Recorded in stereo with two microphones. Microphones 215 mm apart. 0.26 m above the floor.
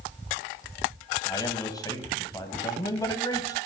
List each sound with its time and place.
1.2 s a man speaking: 20° left (ahead or behind), 1.2 m